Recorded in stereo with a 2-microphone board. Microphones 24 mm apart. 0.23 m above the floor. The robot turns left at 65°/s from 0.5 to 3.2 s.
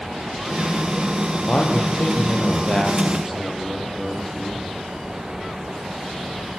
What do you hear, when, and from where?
1.5 s a man speaking: 115° left, 6.5 m; by 4.7 s straight ahead, 6.5 m